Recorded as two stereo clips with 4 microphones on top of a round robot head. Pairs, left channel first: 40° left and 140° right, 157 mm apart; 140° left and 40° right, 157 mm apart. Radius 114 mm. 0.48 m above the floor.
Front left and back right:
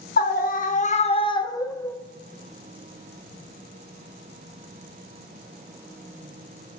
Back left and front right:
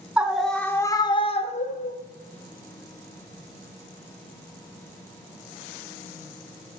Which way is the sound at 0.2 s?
45° left.